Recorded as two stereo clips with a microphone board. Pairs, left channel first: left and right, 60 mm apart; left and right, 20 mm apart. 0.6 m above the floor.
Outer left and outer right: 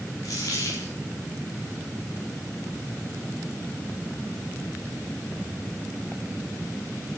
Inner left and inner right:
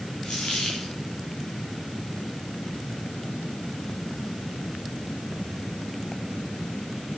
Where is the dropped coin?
85° left, 5 m.